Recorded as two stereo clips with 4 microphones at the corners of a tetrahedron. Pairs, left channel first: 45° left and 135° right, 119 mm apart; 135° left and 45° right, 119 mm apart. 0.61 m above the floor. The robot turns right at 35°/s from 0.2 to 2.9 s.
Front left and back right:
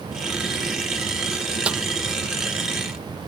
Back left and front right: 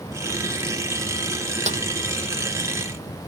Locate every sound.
1.7 s a snare drum: 55° right; by 1.8 s 50° right